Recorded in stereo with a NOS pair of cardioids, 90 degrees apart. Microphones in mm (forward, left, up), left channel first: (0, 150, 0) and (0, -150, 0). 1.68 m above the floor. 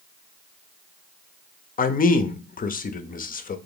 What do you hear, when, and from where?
1.8 s a man speaking: 30° left, 0.6 m